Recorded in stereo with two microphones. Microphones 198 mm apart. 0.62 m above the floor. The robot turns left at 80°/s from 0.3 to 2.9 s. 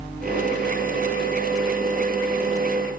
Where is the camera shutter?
No camera shutter in this recording.